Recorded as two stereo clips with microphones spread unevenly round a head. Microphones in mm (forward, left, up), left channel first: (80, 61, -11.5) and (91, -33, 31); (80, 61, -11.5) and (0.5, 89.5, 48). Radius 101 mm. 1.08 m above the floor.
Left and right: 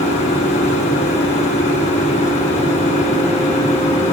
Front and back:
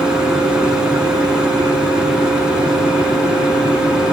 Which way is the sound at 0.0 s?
115° left.